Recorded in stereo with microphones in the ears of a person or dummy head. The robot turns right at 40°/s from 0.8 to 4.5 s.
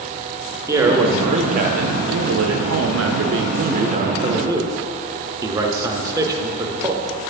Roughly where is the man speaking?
Behind.